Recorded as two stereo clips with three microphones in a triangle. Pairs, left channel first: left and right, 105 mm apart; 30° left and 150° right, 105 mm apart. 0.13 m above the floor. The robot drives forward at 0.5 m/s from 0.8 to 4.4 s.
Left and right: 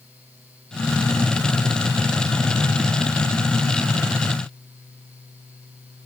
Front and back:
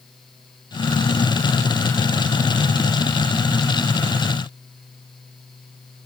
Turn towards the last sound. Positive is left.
No sound to turn to.